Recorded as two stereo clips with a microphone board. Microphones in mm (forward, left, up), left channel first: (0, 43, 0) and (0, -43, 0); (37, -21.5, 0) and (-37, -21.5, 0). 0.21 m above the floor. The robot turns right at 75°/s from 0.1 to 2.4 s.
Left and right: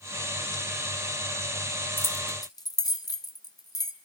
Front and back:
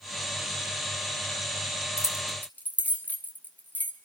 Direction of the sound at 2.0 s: 30° left.